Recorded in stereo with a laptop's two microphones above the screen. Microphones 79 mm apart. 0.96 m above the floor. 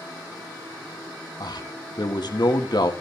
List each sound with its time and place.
1.4 s a man speaking: 60° left (ahead or behind), 1.5 m